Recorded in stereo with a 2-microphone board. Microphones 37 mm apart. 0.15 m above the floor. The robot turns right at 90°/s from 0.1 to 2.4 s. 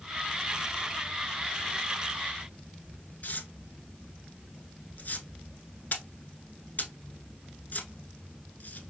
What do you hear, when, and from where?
3.2 s tearing paper: 50° left (ahead or behind), 0.7 m